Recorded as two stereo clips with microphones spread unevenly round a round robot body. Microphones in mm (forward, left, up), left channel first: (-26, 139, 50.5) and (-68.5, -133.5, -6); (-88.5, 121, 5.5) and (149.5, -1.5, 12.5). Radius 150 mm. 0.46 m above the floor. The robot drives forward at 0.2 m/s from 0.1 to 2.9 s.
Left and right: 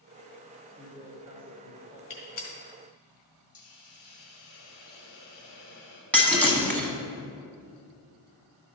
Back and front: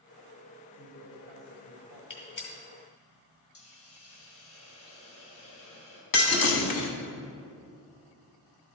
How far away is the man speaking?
About 1.4 m.